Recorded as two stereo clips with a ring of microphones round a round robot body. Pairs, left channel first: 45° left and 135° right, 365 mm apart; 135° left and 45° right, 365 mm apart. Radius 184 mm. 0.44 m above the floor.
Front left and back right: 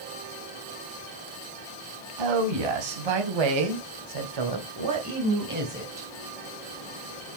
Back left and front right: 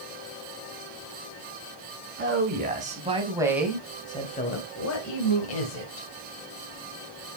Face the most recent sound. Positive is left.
turn(degrees=150)